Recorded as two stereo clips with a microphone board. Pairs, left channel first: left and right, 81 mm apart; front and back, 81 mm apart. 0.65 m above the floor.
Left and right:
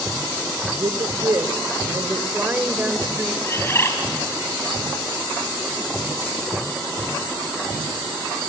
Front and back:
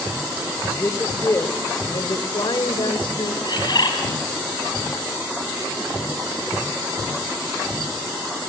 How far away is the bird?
About 4 m.